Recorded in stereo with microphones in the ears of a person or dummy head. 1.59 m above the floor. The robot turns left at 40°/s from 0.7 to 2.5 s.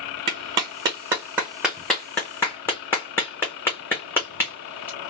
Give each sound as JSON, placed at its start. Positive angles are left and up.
{"t": 0.3, "sound": "a clap", "side_deg": -25, "distance_m": 0.8}